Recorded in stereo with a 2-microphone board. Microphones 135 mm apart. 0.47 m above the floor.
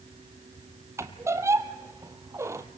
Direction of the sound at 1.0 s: 20° right (ahead or behind).